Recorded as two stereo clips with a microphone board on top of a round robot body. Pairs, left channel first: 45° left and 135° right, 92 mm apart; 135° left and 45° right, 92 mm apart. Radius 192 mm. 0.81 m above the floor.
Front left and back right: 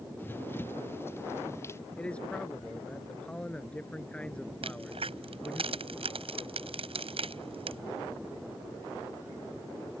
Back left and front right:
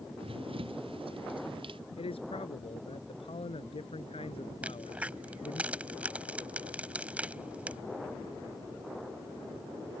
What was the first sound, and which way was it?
Running footsteps, 25° right.